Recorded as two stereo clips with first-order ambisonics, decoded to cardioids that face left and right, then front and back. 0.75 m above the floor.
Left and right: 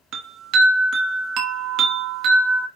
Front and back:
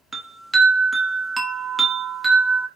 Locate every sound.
0.1 s a chime: 100° right, 1.0 m